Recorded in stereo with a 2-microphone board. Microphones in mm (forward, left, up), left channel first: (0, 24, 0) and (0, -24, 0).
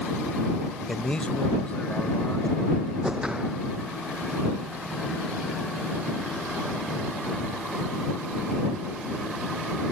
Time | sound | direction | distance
0.9 | a man speaking | 10° left (ahead or behind) | ?
3.0 | a whoosh | 15° right (ahead or behind) | ?